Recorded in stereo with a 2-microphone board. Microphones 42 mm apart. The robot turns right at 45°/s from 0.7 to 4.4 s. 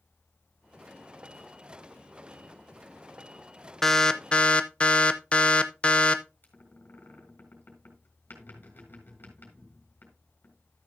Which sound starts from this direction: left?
A squeak, at 6.4 s.